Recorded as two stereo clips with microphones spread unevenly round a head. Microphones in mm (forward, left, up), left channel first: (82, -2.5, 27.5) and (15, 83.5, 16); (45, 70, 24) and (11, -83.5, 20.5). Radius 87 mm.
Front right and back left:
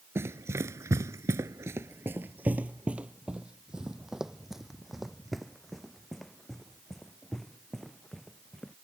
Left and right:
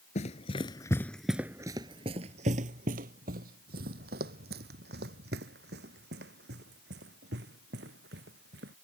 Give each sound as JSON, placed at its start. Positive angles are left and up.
{"t": 0.1, "sound": "running footsteps", "azimuth_deg": 60}